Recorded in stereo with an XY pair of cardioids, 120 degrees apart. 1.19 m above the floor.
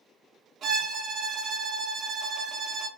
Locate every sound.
0.6 s a violin: 50° right, 0.7 m